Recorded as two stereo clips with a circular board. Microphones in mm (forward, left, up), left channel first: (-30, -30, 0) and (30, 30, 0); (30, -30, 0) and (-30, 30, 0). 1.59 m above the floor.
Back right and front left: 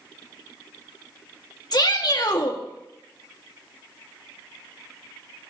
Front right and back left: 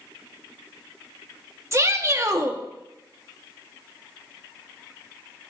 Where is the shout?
170° right, 1.6 m.